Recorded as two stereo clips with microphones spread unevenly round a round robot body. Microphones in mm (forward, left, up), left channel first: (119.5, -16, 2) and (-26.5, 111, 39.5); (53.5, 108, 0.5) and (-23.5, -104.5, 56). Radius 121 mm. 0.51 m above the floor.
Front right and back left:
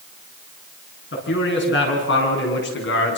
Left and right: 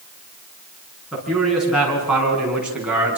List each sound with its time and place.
1.1 s a man speaking: 20° right, 8 m; by 3.2 s 25° right, 6 m